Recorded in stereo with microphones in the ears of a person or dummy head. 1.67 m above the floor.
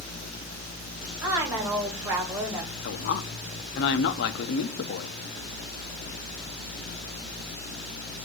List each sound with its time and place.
1.2 s a woman speaking: 20° right (ahead or behind), 1.8 m
2.8 s a man speaking: 65° left (ahead or behind), 0.8 m